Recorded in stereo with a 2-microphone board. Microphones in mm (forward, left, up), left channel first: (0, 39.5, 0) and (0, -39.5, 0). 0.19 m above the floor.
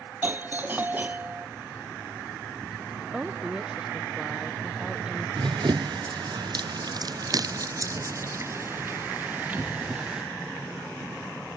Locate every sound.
0.2 s a doorbell: 25° right (ahead or behind)
3.1 s a woman speaking: 10° right (ahead or behind)
5.4 s running footsteps: 80° right; by 10.3 s 10° right (ahead or behind)